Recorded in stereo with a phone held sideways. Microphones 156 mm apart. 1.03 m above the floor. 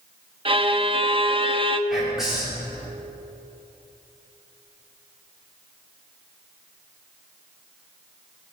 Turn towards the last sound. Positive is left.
turn(degrees=0)  # may be behind; listen again after turning